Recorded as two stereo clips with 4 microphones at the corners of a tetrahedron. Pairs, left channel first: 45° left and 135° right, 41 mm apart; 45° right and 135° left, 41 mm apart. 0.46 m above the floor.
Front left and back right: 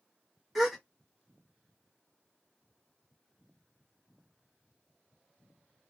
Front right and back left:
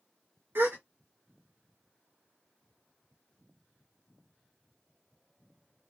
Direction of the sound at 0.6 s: 135° left.